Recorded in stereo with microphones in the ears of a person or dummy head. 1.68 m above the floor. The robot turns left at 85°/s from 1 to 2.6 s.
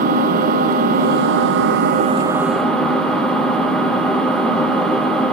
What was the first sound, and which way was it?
An engine running, 45° right.